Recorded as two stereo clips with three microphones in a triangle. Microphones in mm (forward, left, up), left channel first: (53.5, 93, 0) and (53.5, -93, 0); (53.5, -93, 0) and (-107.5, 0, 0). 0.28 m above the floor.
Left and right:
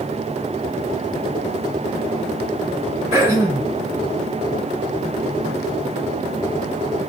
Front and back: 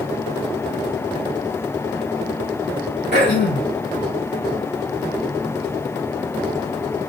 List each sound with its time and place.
3.1 s throat clearing: 15° right, 3 m